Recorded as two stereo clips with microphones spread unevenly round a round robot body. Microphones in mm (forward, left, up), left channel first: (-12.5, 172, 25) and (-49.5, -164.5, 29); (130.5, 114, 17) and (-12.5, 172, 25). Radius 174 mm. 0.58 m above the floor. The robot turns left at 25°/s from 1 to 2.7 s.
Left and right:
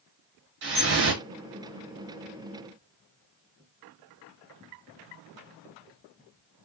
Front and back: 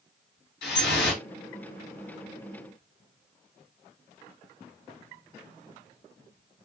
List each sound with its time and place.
0.6 s dripping: 35° right, 0.7 m; by 1.2 s 40° right, 0.7 m